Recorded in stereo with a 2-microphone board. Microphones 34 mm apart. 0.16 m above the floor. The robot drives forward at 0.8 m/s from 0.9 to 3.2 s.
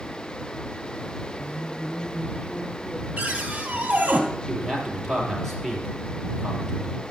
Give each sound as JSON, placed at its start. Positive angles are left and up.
{"t": 1.4, "sound": "a woman speaking", "side_deg": 55, "distance_m": 3.0}
{"t": 3.2, "sound": "a cupboard door", "side_deg": -40, "distance_m": 2.5}
{"t": 4.5, "sound": "a man speaking", "side_deg": 10, "distance_m": 3.5}